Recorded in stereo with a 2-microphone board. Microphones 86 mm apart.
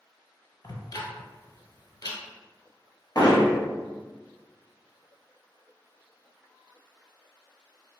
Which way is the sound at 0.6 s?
55° left (ahead or behind).